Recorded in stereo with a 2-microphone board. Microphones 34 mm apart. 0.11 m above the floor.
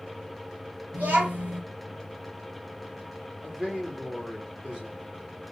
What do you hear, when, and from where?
0.9 s a child speaking: 50° right (ahead or behind), 1.7 m
3.4 s a man speaking: 15° right (ahead or behind), 1.8 m